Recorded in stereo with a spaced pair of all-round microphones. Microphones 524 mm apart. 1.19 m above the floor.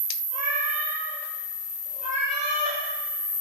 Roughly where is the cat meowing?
Centre.